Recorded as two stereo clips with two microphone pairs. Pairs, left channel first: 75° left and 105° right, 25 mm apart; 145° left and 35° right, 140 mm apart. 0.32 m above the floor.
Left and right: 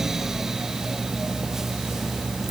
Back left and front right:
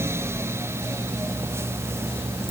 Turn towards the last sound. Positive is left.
No sound to turn to.